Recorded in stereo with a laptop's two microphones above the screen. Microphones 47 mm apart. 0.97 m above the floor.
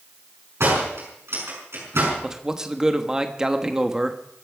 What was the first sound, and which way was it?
A door slam, 65° right (ahead or behind).